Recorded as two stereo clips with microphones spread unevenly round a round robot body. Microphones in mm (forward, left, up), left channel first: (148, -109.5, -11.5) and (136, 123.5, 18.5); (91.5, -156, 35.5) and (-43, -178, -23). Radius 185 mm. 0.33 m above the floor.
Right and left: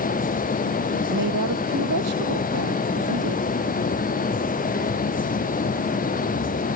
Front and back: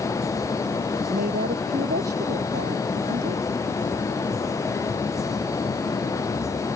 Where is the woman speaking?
140° left.